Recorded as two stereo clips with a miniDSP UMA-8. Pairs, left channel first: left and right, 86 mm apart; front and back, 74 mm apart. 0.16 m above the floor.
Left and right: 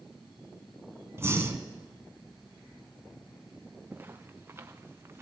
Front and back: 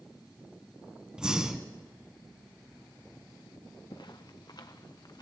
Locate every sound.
1.2 s breathing: 110° right, 1.2 m
3.9 s footsteps: 25° right, 1.0 m; by 5.2 s 30° right, 1.7 m